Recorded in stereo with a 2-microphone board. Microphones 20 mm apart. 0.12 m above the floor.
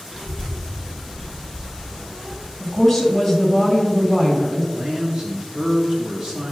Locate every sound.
0.1 s a child speaking: 15° right (ahead or behind), 2.5 m; by 2.5 s 30° right (ahead or behind), 3.5 m
2.6 s a woman speaking: centre (ahead or behind), 2 m
4.7 s a man speaking: 40° right (ahead or behind), 1.4 m